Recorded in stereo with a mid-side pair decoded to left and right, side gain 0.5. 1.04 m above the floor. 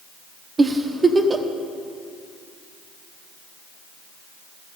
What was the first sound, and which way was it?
A giggle, 25° right.